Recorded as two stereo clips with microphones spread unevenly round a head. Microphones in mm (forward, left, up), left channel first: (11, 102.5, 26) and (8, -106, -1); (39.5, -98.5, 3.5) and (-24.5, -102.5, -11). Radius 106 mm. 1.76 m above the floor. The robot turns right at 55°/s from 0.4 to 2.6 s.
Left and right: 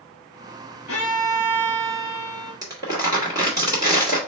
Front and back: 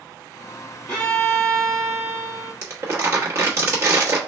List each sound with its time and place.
0.9 s a violin: 90° left, 2.5 m; by 2.5 s straight behind, 2.5 m
2.6 s crumpling: 160° right, 1.3 m